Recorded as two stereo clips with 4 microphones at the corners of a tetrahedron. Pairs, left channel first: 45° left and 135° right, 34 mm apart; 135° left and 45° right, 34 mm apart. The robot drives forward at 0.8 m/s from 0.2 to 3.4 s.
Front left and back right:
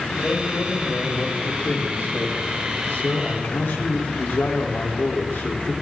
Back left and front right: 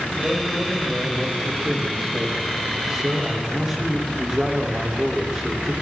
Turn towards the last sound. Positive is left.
turn(degrees=40)